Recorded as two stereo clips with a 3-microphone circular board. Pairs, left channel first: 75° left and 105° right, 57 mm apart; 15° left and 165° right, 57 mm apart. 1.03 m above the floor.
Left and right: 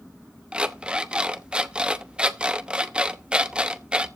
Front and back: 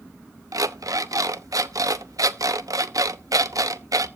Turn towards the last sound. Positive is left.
turn(degrees=-175)